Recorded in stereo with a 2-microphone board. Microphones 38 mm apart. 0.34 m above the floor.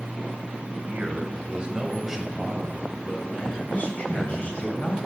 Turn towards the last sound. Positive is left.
turn(degrees=45)  # may be behind; listen again after turning